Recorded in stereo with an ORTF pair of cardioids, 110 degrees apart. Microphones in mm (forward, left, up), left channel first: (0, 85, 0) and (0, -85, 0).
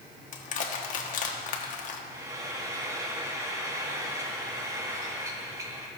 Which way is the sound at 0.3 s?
50° left.